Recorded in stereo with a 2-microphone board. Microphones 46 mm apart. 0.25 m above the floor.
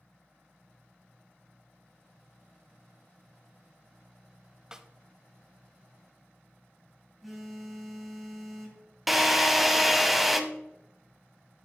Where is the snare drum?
15° right (ahead or behind), 0.5 m.